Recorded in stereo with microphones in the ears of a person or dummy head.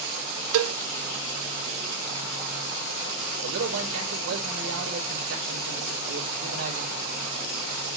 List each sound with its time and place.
0.5 s a cowbell: 75° right (ahead or behind), 0.8 m
3.4 s a man speaking: 75° right (ahead or behind), 3.5 m